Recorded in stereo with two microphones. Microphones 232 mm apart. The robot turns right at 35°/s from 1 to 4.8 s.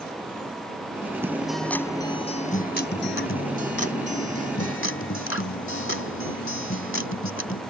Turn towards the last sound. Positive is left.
turn(degrees=115)